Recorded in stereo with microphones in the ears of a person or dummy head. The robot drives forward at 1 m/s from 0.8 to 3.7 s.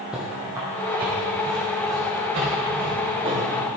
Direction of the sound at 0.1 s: 5° right (ahead or behind).